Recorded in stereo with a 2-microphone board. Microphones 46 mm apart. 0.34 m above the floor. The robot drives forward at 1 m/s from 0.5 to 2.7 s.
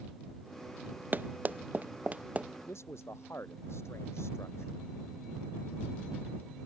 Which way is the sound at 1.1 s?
40° right (ahead or behind).